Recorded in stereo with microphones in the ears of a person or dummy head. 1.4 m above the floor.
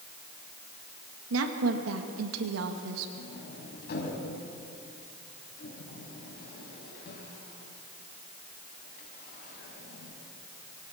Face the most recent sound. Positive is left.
turn(degrees=50)  # may be behind; listen again after turning